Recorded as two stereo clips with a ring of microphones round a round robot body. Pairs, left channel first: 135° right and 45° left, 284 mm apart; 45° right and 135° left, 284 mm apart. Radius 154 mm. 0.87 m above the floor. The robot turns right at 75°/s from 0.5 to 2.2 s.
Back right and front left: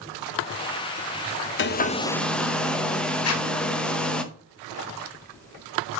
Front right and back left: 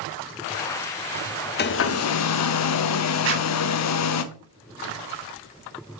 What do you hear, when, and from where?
1.6 s a hair dryer: 95° right, 0.8 m; by 4.2 s 50° right, 0.8 m
3.2 s a zipper: 175° right, 1.5 m